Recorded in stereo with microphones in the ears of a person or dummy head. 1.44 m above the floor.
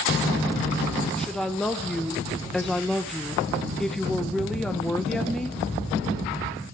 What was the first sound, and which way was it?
A woman speaking, 5° left (ahead or behind).